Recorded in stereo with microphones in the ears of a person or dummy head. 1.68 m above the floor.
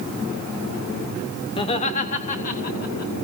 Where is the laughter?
30° left (ahead or behind), 0.9 m; by 3.1 s 50° left (ahead or behind), 2.5 m.